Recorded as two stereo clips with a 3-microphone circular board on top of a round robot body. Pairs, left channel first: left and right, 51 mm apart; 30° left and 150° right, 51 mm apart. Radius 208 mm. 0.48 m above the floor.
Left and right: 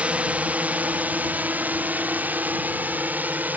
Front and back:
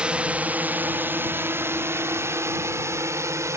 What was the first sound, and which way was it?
A drone, 110° right.